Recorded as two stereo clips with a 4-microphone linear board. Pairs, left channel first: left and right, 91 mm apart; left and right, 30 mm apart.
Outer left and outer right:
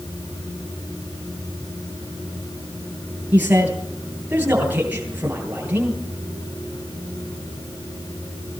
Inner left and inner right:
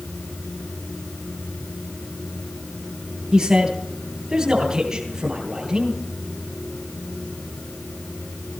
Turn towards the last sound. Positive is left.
turn(degrees=-15)  # may be behind; listen again after turning